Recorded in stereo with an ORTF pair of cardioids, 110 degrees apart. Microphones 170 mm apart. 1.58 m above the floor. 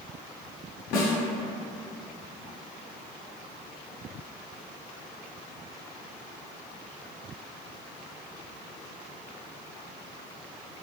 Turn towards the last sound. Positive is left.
turn(degrees=65)